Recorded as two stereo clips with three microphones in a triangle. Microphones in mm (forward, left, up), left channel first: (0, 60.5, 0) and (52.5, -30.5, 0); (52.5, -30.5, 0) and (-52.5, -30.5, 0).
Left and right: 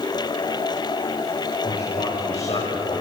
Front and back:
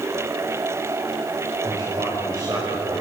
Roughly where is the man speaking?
Behind left.